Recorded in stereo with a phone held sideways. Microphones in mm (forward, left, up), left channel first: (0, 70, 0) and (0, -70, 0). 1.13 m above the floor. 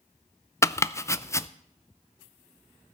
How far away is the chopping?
About 0.5 m.